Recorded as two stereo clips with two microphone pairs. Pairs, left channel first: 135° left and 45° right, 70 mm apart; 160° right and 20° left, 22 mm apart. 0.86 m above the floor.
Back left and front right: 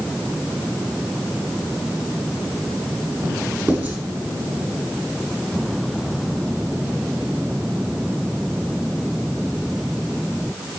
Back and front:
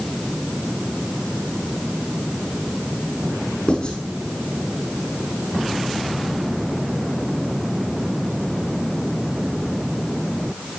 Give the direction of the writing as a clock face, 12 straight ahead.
4 o'clock.